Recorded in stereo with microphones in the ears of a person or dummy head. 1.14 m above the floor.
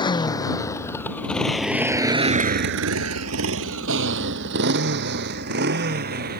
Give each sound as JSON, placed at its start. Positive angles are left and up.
{"t": 0.0, "sound": "a motorcycle", "side_deg": 20}